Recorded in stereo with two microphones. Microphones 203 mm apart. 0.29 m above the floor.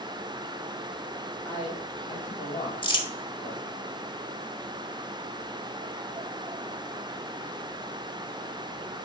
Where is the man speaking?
15° left (ahead or behind), 1.6 m; by 3.7 s 40° left (ahead or behind), 3 m.